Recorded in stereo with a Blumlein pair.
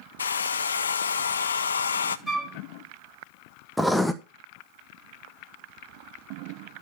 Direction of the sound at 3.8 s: 5° left.